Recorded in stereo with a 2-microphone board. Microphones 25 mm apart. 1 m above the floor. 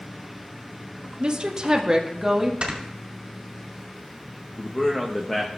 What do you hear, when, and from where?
1.2 s a woman speaking: 45° right (ahead or behind), 0.8 m; by 2.5 s 15° right (ahead or behind), 1.5 m
2.6 s snoring: 50° right (ahead or behind), 1.9 m
4.6 s a man speaking: 20° left (ahead or behind), 1.0 m